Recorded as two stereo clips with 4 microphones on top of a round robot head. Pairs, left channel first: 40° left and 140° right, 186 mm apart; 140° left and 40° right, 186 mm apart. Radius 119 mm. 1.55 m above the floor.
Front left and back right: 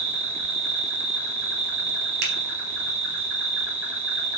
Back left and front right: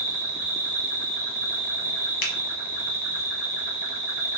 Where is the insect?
125° right, 1.2 m.